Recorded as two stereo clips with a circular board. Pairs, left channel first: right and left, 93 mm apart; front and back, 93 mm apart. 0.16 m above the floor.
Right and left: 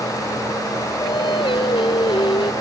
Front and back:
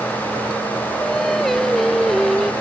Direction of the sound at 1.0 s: 90° right.